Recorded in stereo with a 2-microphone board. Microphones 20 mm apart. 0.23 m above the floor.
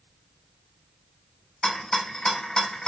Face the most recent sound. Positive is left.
turn(degrees=35)  # may be behind; listen again after turning